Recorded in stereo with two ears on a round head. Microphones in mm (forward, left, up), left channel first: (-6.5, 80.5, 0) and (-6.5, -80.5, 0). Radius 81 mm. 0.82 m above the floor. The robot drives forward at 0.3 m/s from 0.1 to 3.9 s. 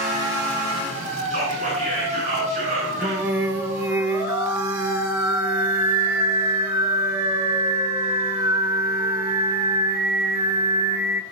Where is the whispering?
40° right (ahead or behind), 9 m.